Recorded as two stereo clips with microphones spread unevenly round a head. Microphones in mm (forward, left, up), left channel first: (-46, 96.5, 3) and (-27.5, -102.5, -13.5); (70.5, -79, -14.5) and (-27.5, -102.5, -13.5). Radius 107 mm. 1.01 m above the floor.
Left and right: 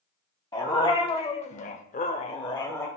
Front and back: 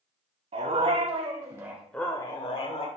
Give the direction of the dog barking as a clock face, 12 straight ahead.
7 o'clock.